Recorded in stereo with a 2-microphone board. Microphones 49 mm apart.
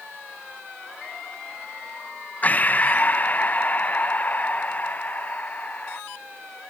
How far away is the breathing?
About 0.5 m.